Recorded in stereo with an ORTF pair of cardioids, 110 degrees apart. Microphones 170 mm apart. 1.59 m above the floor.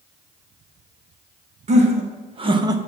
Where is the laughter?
45° right, 2.5 m; by 2.8 s 20° right, 1.0 m.